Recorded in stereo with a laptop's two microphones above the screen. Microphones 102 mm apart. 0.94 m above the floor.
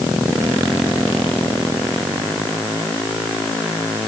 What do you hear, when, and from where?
Only background noise.